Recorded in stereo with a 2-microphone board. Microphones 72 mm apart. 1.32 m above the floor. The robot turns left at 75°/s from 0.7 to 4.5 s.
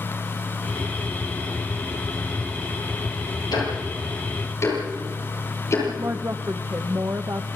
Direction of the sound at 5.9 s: 45° right (ahead or behind).